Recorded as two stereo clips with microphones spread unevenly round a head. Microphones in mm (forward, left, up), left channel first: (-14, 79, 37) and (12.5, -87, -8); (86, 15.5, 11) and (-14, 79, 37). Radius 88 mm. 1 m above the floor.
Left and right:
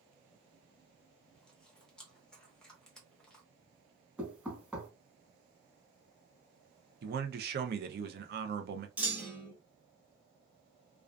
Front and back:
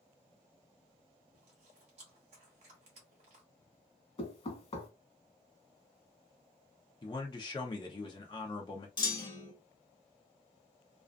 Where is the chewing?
170° right, 0.8 m.